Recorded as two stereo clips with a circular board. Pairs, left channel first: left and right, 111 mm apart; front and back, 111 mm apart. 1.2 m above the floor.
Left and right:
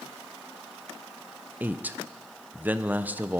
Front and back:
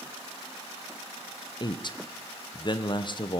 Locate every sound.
1.6 s a man speaking: 20° right, 0.6 m